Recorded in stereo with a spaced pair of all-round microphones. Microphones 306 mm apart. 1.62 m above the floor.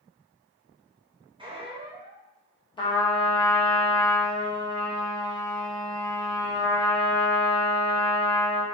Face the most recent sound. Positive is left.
turn(degrees=15)  # may be behind; listen again after turning